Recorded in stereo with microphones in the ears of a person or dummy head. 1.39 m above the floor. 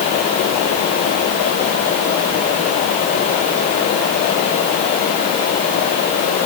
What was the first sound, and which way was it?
Only background noise.